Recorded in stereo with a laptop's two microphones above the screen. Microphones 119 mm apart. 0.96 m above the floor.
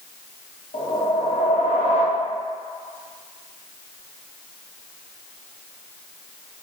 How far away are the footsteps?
I don't hear footsteps.